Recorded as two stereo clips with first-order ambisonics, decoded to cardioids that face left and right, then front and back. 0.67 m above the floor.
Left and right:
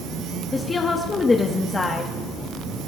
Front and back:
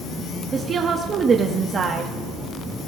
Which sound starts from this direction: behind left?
A woman speaking, at 0.5 s.